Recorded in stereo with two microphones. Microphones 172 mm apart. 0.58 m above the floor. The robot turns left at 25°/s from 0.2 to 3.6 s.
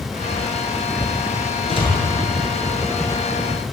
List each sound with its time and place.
1.7 s a door slam: 35° left (ahead or behind), 7.5 m; by 1.9 s 30° left (ahead or behind), 7.5 m